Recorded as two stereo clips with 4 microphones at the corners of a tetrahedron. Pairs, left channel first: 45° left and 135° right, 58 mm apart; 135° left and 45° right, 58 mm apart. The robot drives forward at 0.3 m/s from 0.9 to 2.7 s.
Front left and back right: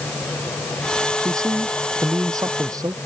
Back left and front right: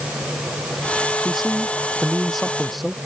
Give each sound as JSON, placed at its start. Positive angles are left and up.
{"t": 1.2, "sound": "a man speaking", "azimuth_deg": -130}